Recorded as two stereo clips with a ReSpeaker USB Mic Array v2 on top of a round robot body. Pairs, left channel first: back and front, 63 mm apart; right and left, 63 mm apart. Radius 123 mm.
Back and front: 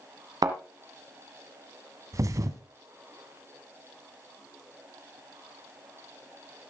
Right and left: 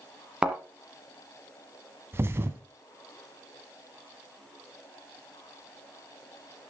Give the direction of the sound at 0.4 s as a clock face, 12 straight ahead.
12 o'clock.